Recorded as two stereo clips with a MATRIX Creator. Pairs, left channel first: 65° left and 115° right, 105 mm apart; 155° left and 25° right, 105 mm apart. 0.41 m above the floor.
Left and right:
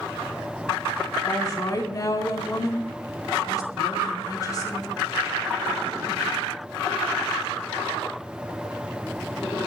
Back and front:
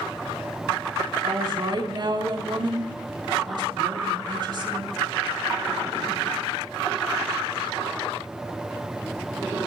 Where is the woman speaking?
15° left, 3.5 m.